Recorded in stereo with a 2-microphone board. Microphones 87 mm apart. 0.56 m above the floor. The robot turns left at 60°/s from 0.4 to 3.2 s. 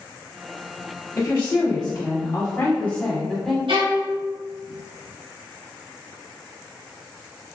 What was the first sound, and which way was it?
A woman speaking, 130° left.